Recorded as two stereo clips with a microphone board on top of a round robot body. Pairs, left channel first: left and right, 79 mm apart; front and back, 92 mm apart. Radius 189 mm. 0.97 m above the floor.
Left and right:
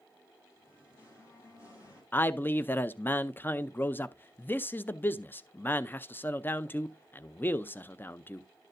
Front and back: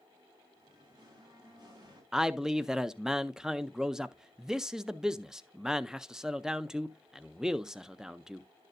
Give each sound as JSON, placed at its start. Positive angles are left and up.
{"t": 0.6, "sound": "singing", "azimuth_deg": 140, "distance_m": 6.5}
{"t": 2.1, "sound": "a man speaking", "azimuth_deg": 105, "distance_m": 0.7}